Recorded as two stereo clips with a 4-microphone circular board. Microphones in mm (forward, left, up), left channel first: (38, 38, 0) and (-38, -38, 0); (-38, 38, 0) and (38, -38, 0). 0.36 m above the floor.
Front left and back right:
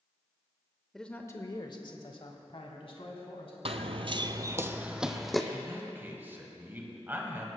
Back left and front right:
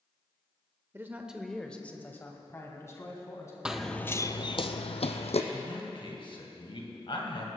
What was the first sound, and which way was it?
A man speaking, 40° right.